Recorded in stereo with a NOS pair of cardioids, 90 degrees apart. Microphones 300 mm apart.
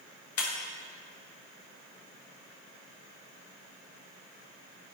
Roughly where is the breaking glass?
Ahead left.